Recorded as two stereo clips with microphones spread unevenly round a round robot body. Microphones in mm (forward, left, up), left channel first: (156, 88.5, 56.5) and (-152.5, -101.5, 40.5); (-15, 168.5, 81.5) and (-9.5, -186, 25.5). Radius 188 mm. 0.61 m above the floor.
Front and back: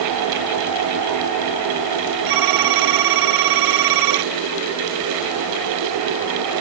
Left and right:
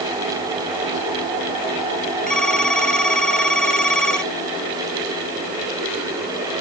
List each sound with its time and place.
2.3 s a phone ringing: straight behind